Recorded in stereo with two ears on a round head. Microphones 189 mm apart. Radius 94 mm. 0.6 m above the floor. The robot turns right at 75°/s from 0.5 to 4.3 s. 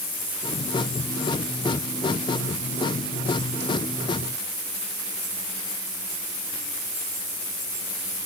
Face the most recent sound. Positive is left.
No sound to turn to.